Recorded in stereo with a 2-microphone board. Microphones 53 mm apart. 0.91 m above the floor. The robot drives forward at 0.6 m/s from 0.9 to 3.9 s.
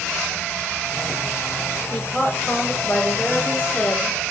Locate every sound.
1.9 s a woman speaking: 30° left (ahead or behind), 3.5 m; by 4.2 s 40° left (ahead or behind), 2.5 m